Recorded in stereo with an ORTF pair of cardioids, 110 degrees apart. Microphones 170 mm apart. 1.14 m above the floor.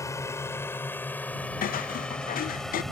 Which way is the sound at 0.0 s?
20° left.